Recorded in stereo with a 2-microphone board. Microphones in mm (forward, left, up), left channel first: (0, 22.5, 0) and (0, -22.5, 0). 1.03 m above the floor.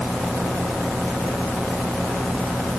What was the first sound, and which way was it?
Only background noise.